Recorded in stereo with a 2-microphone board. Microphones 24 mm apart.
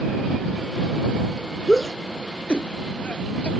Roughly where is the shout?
Left.